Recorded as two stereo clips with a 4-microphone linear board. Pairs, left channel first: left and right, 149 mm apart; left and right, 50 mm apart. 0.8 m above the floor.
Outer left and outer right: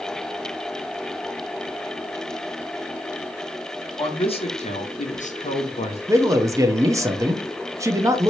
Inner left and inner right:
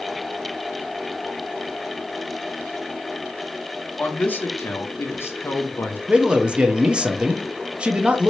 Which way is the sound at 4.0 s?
35° left (ahead or behind).